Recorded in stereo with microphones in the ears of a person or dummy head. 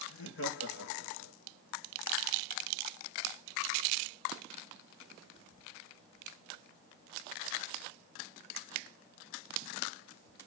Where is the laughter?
80° left, 4.5 m; by 1.3 s 90° left, 3 m.